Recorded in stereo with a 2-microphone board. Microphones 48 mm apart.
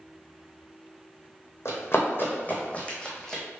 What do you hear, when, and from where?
1.6 s running footsteps: 60° left (ahead or behind), 1.2 m; by 3.4 s 5° left (ahead or behind), 1.2 m